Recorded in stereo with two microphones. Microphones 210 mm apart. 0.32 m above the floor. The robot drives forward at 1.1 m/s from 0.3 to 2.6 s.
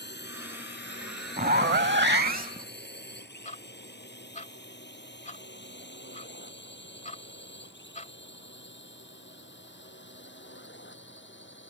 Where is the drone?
55° left (ahead or behind); by 11.7 s 60° left (ahead or behind).